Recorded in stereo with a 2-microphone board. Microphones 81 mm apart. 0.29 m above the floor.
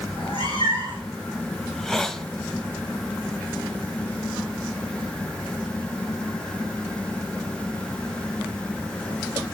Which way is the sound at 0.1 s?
85° left.